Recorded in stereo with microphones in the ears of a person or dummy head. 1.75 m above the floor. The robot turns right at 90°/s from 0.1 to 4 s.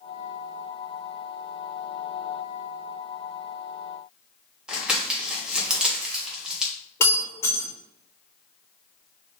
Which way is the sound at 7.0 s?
15° left (ahead or behind).